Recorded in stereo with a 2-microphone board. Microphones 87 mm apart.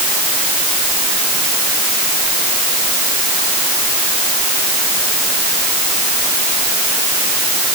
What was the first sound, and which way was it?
Only background noise.